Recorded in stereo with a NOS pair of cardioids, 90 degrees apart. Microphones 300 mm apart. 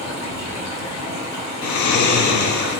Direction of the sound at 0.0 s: 65° left.